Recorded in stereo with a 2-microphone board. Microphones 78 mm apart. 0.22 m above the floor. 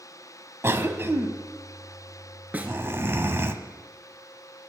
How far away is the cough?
About 1.2 m.